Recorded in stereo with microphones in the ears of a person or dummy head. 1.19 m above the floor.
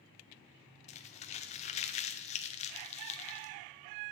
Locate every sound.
0.9 s crumpling: 35° left (ahead or behind), 0.8 m